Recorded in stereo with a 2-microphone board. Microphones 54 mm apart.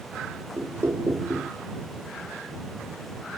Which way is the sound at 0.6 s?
55° right (ahead or behind).